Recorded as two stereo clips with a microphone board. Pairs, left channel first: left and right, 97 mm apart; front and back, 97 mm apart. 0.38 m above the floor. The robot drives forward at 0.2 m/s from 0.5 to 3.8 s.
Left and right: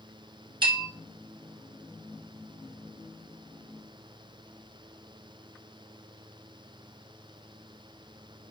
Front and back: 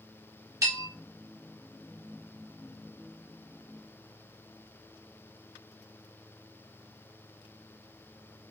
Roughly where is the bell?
Behind right.